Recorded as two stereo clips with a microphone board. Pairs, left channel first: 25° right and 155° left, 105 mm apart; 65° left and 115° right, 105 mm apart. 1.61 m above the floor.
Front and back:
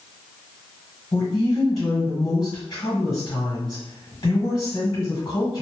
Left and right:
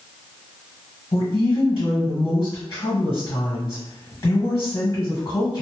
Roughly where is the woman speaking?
Ahead.